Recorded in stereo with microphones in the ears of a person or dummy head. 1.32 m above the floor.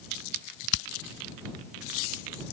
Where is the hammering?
60° left (ahead or behind).